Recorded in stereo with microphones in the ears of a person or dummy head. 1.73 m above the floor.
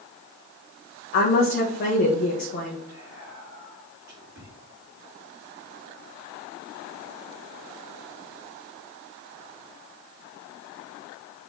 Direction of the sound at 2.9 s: 20° right (ahead or behind).